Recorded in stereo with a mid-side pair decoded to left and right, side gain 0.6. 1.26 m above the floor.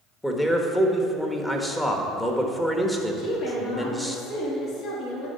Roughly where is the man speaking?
Ahead.